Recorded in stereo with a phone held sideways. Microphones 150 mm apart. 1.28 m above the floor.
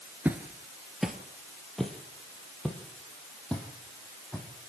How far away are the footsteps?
About 1.4 m.